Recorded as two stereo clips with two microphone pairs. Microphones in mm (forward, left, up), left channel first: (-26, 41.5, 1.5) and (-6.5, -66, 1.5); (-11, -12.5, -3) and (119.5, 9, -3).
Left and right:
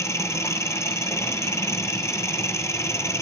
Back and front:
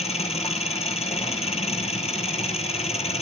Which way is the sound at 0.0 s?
160° left.